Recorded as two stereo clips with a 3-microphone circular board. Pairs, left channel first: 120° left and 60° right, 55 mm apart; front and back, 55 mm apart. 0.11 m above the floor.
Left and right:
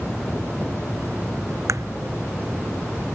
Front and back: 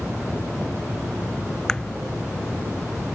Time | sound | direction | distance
1.7 | a crack | 75° right | ?